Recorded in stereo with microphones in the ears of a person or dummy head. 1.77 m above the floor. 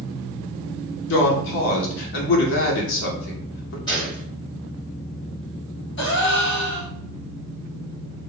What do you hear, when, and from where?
1.1 s a woman speaking: 60° left (ahead or behind), 0.7 m
3.9 s a gunshot: 20° left (ahead or behind), 1.2 m
6.0 s a gasp: 65° left (ahead or behind), 1.1 m